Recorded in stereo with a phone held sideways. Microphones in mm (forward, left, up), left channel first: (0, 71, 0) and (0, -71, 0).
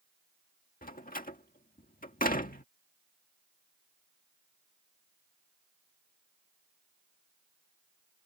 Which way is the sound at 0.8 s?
80° left.